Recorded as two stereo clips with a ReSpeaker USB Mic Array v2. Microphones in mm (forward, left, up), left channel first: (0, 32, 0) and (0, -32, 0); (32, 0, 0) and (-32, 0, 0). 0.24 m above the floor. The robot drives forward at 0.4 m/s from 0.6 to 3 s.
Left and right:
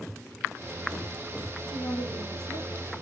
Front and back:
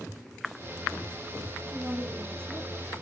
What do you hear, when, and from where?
1.7 s a woman speaking: 110° left, 9 m